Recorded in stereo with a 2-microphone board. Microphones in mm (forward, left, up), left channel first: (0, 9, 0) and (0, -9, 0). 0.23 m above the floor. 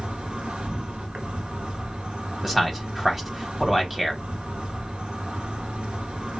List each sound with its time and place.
0.0 s an insect: 80° right, 1.0 m
2.4 s a man speaking: 5° right (ahead or behind), 1.1 m